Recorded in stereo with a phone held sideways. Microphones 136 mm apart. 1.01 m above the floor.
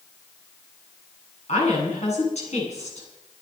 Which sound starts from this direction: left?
A woman speaking, at 1.5 s.